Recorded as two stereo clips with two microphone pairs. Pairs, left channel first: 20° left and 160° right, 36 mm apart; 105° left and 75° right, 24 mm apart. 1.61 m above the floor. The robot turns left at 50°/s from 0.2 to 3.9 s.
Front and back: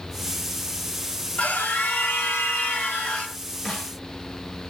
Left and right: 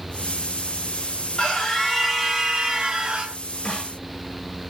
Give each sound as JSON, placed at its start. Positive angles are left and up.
{"t": 1.4, "sound": "a scream", "azimuth_deg": 55, "distance_m": 1.1}
{"t": 3.6, "sound": "a snare drum", "azimuth_deg": 85, "distance_m": 2.0}